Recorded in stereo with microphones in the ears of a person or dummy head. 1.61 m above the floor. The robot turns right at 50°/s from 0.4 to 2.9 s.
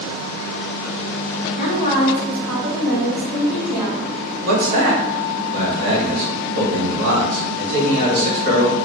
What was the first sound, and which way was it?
A woman speaking, 125° left.